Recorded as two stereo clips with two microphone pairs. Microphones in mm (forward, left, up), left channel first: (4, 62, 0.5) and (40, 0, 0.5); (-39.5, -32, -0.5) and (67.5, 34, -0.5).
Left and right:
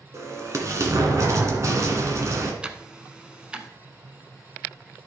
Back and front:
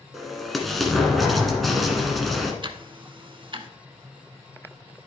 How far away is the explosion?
About 1.7 m.